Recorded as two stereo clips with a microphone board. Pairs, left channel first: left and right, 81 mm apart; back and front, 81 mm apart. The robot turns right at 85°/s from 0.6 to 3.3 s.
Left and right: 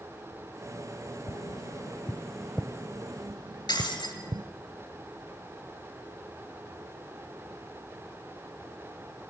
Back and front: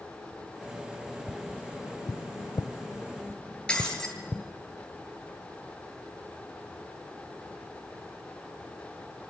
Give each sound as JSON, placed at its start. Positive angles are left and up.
{"t": 1.3, "sound": "tapping", "azimuth_deg": 85, "distance_m": 0.6}
{"t": 3.7, "sound": "breaking glass", "azimuth_deg": 100, "distance_m": 7.5}